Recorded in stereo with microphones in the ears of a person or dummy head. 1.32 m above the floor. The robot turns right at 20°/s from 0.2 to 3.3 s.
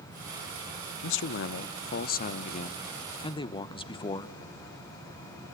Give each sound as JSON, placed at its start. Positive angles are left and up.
{"t": 1.0, "sound": "a man speaking", "azimuth_deg": 110, "distance_m": 0.7}